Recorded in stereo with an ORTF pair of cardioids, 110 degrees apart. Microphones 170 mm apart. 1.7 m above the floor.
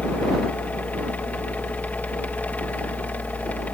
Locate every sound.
0.0 s a fan: 10° left